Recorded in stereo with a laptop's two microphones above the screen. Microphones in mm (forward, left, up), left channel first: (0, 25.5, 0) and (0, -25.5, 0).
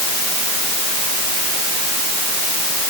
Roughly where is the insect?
I don't hear an insect.